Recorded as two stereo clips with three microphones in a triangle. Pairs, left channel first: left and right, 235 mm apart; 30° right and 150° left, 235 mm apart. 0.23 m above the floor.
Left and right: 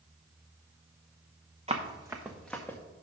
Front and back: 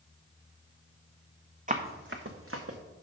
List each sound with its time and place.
1.7 s running footsteps: 150° right, 1.1 m; by 2.8 s 170° left, 1.2 m